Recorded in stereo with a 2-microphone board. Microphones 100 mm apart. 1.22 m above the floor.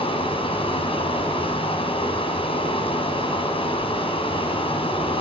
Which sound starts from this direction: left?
Running water, at 0.0 s.